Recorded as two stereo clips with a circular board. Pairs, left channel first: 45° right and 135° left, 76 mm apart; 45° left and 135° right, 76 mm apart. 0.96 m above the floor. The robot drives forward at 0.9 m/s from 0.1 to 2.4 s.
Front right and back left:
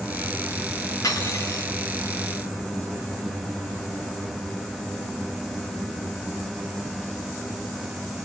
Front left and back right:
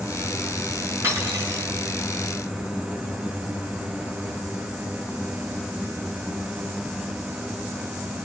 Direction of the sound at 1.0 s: 85° right.